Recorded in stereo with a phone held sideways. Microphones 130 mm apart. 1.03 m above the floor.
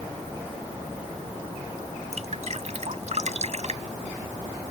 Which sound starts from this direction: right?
Dripping, at 2.1 s.